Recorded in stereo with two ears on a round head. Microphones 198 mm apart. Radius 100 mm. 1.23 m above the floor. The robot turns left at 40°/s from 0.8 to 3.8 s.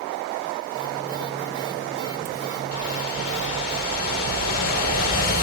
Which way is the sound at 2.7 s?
85° left.